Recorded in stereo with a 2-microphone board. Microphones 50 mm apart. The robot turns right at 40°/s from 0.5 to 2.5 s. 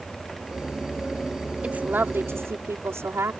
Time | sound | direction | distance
1.6 | a woman speaking | 155° right | ?